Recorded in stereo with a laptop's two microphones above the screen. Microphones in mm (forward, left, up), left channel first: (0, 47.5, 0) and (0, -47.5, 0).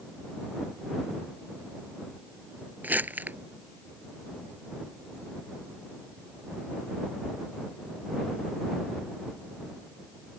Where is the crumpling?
20° right (ahead or behind).